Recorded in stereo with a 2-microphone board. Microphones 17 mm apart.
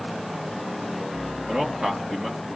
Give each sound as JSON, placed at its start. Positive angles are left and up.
{"t": 1.5, "sound": "a man speaking", "side_deg": -45, "distance_m": 3.5}